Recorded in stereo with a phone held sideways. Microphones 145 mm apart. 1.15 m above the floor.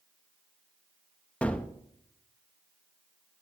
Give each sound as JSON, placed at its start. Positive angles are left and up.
{"t": 1.4, "sound": "a gunshot", "side_deg": 10, "distance_m": 0.7}